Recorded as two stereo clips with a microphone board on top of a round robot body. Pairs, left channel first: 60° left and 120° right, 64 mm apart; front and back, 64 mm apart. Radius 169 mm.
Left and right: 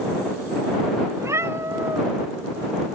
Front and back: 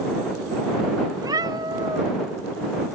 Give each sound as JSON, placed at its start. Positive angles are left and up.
{"t": 1.2, "sound": "a cat meowing", "azimuth_deg": -160}